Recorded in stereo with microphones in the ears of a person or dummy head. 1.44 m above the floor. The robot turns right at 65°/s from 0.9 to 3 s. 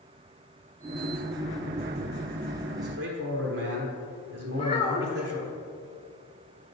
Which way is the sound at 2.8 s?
50° right (ahead or behind).